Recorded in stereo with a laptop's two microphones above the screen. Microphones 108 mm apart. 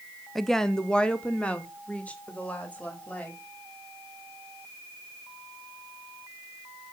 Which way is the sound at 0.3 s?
Centre (ahead or behind).